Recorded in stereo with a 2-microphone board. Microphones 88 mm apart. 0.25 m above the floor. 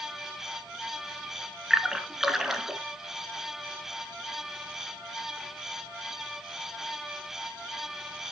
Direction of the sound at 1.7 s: 5° right (ahead or behind).